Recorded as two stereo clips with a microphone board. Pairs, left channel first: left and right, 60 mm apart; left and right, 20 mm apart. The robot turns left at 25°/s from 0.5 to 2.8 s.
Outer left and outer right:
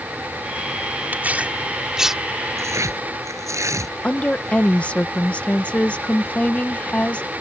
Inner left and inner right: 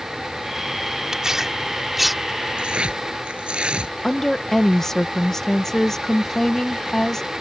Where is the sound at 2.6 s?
50° right (ahead or behind); by 4.0 s 55° right (ahead or behind).